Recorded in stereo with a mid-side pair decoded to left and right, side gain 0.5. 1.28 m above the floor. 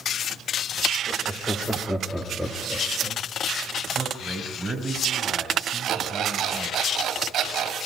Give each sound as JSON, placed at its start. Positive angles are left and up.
{"t": 1.1, "sound": "laughter", "azimuth_deg": 10, "distance_m": 4.0}
{"t": 4.0, "sound": "a man speaking", "azimuth_deg": -15, "distance_m": 6.5}
{"t": 5.8, "sound": "an alarm clock", "azimuth_deg": -55, "distance_m": 5.0}